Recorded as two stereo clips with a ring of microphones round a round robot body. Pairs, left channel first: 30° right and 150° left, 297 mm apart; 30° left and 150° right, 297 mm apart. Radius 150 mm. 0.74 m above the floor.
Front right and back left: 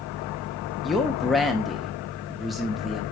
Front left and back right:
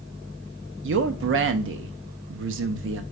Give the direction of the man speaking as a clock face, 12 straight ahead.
4 o'clock.